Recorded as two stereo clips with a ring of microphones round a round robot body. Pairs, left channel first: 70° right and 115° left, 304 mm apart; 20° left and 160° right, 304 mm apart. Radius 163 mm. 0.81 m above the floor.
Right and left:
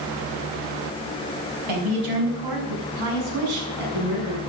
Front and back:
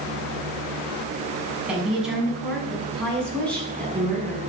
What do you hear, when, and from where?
1.7 s a woman speaking: 115° left, 6.5 m; by 4.4 s 105° left, 7.5 m